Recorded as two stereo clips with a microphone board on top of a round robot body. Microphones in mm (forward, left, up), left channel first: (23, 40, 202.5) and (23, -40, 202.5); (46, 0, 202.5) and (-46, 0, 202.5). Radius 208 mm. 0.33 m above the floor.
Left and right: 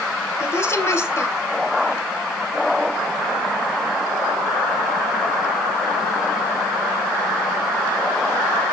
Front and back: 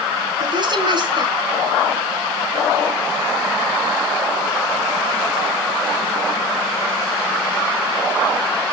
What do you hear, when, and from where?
0.4 s a woman speaking: 145° left, 3 m